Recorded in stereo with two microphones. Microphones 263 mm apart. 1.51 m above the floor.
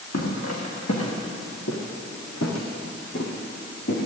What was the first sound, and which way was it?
Footsteps, 70° left (ahead or behind).